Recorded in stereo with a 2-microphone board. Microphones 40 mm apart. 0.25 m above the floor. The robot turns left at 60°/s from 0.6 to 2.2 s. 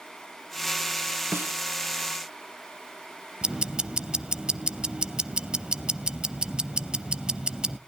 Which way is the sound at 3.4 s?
20° right (ahead or behind).